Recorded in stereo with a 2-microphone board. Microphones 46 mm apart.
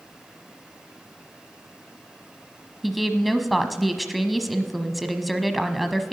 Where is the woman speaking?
Centre (ahead or behind), 1.0 m.